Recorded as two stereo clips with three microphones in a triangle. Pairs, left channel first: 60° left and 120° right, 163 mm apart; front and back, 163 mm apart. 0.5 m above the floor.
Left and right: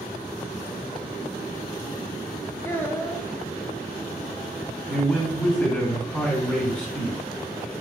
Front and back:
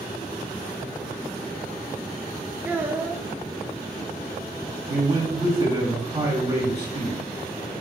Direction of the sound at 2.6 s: 115° left.